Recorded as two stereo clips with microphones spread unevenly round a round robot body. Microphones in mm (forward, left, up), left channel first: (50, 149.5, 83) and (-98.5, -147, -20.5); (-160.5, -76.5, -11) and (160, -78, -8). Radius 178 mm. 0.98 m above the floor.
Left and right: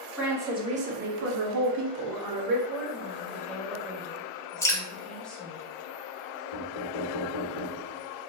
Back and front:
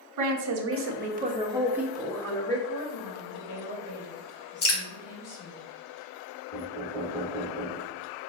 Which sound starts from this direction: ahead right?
A woman speaking, at 0.2 s.